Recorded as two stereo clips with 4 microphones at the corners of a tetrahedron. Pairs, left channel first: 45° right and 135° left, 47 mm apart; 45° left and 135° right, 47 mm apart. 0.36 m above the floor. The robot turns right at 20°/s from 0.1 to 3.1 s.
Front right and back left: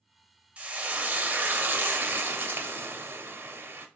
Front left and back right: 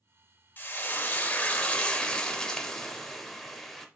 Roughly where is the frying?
Left.